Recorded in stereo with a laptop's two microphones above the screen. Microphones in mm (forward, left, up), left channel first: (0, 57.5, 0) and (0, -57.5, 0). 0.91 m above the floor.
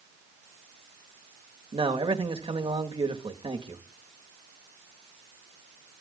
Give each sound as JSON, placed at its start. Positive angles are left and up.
{"t": 1.7, "sound": "a man speaking", "side_deg": -55, "distance_m": 1.4}